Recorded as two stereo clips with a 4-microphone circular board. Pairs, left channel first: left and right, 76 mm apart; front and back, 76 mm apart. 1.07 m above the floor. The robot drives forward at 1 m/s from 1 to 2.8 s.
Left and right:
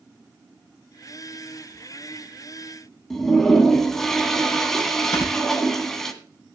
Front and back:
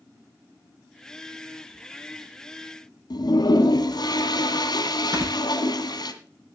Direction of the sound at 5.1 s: 140° left.